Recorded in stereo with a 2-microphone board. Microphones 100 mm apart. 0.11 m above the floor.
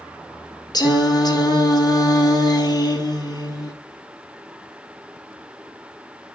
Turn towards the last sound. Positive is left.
turn(degrees=40)  # may be behind; listen again after turning